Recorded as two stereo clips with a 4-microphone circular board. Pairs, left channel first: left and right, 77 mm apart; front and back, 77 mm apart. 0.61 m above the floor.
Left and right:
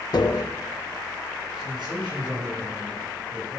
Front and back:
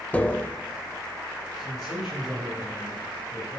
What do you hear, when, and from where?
0.1 s tapping: 70° left, 0.5 m
1.6 s a man speaking: 90° right, 4 m